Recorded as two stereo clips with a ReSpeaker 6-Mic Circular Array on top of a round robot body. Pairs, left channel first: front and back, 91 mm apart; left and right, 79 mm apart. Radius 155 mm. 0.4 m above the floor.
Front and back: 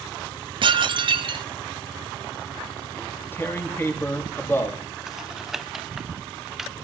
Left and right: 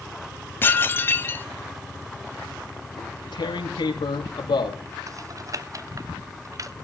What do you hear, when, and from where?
0.6 s dishes clattering: 150° left, 2 m
3.0 s tearing paper: 65° left, 4.5 m
5.1 s typing on a keyboard: 95° right, 1.4 m